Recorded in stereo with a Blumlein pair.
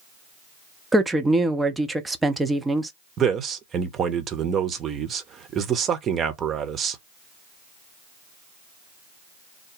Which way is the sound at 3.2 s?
25° right.